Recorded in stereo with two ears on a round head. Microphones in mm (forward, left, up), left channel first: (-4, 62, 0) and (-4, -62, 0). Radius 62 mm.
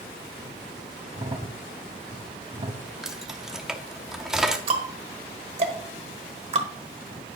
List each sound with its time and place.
1.1 s a crack: 35° right (ahead or behind), 0.8 m
3.0 s keys jangling: 5° right (ahead or behind), 0.8 m
4.7 s ticking: 45° right (ahead or behind), 1.2 m